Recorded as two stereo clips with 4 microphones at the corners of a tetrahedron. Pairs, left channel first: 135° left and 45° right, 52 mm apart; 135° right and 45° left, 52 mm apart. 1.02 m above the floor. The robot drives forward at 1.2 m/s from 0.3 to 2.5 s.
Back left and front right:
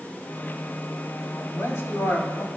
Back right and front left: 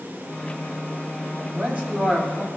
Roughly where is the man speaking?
Left.